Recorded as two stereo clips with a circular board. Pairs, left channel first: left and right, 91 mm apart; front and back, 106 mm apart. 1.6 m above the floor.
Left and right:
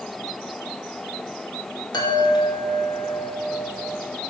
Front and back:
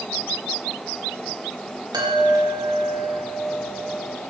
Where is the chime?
130° left, 2.5 m.